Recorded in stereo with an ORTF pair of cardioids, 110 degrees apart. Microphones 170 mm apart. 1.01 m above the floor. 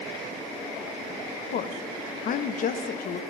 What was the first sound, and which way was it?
A woman speaking, 55° left.